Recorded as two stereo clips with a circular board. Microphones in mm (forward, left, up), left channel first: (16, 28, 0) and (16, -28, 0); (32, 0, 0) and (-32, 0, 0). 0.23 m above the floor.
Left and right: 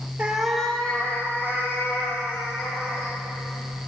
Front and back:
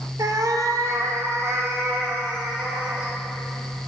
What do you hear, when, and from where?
0.2 s a cat meowing: 160° right, 0.8 m; by 3.1 s 125° left, 3.5 m